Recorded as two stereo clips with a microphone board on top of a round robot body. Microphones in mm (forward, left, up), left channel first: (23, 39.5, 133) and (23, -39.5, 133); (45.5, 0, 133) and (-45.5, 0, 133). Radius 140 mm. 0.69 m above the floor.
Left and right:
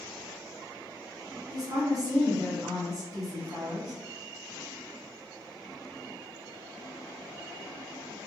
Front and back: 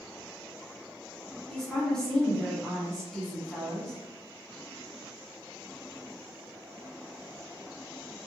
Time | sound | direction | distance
1.5 | a woman speaking | 80° right | 1.2 m